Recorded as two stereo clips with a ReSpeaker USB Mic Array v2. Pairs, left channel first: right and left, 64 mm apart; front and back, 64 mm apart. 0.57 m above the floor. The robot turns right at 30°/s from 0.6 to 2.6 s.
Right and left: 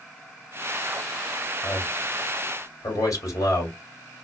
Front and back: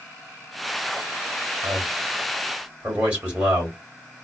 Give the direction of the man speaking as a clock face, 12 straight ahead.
5 o'clock.